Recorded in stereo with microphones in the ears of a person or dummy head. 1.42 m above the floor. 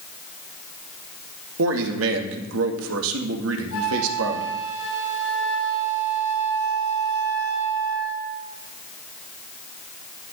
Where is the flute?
80° left, 5.5 m.